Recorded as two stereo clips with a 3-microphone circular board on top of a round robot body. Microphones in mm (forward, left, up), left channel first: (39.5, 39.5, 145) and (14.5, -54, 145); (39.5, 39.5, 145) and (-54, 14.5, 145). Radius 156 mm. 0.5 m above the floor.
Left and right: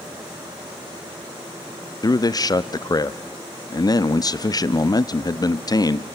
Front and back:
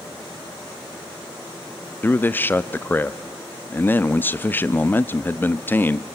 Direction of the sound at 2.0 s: 75° left.